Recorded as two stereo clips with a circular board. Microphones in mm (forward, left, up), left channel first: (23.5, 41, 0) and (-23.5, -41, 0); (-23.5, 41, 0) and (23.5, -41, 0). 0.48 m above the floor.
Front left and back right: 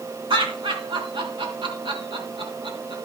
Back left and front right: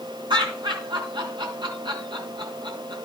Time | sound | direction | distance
0.3 | laughter | 95° right | 4 m